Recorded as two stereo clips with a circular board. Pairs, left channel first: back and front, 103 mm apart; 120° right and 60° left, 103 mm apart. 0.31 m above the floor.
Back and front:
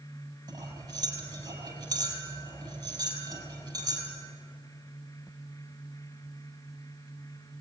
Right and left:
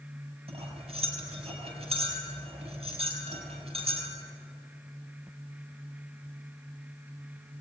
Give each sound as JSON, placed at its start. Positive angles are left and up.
{"t": 0.5, "sound": "cutlery clinking", "azimuth_deg": 45, "distance_m": 5.5}